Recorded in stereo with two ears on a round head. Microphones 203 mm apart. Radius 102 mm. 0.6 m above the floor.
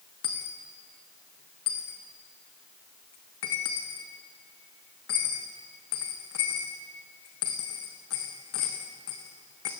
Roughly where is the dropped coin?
Left.